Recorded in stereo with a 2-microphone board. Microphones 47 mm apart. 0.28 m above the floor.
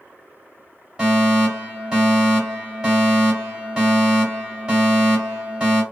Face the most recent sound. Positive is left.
turn(degrees=-15)  # may be behind; listen again after turning